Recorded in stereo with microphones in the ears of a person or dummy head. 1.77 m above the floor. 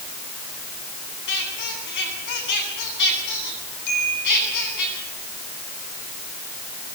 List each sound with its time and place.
1.3 s a squeak: 60° left (ahead or behind), 10 m
3.9 s a chime: 60° left (ahead or behind), 10 m